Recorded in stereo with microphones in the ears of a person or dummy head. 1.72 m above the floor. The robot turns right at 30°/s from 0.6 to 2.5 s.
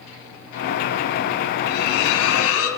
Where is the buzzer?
No buzzer in this recording.